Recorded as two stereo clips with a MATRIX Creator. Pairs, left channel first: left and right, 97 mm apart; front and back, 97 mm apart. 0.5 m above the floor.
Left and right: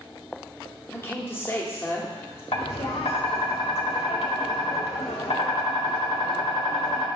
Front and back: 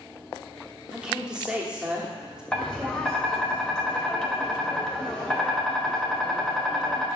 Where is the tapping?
85° left, 1.0 m.